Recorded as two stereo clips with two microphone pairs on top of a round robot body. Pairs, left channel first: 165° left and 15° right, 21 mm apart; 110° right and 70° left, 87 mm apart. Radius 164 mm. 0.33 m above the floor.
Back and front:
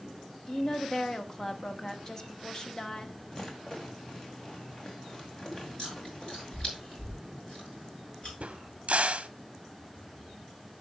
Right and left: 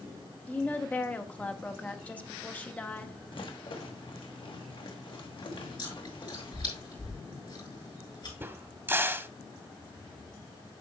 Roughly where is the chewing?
Behind right.